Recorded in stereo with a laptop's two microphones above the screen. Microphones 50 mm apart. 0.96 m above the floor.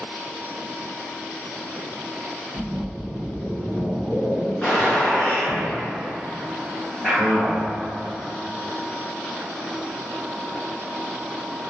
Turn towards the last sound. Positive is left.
turn(degrees=-5)  # may be behind; listen again after turning